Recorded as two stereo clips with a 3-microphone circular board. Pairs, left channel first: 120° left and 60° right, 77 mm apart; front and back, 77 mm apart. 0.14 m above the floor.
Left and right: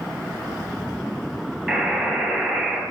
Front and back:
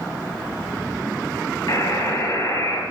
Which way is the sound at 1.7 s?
15° left.